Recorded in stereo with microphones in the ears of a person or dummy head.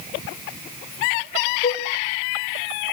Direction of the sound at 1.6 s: 30° left (ahead or behind).